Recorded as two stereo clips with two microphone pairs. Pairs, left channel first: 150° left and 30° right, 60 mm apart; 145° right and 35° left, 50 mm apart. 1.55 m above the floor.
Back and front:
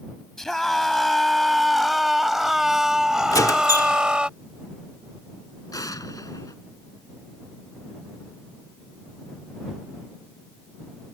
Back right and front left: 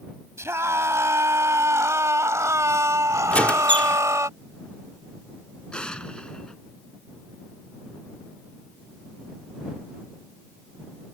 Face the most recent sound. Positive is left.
turn(degrees=145)